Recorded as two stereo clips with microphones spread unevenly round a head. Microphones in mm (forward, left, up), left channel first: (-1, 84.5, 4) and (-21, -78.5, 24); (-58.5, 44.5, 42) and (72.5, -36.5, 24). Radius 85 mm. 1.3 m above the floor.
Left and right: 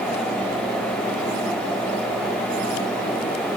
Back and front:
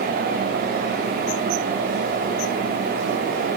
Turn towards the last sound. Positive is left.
No sound to turn to.